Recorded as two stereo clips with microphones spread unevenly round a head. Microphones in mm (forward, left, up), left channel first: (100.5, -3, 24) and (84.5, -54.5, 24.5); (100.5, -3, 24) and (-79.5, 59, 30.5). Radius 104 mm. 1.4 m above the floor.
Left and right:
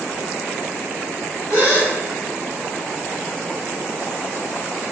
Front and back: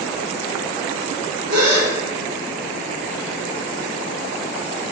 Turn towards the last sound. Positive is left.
turn(degrees=170)